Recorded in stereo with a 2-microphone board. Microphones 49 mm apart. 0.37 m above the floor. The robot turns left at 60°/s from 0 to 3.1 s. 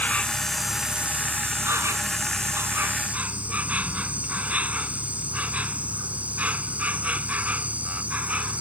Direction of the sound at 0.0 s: 35° left.